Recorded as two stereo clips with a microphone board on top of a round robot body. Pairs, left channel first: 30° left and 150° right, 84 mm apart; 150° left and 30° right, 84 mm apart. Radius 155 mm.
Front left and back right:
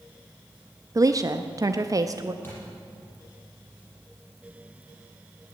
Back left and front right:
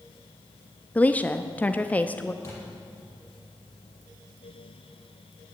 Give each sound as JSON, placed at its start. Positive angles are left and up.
{"t": 0.9, "sound": "a woman speaking", "azimuth_deg": -145, "distance_m": 0.8}
{"t": 2.4, "sound": "a thud", "azimuth_deg": 95, "distance_m": 7.5}